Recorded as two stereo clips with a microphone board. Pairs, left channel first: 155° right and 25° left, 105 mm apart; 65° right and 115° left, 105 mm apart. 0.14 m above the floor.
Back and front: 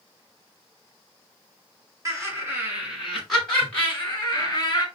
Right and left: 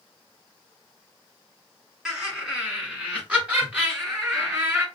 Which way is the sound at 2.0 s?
35° left.